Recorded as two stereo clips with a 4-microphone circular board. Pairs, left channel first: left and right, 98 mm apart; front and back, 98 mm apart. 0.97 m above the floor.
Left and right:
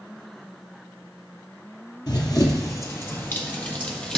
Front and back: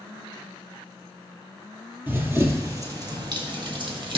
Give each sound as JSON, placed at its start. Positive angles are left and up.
{"t": 2.1, "sound": "running footsteps", "azimuth_deg": 120, "distance_m": 1.4}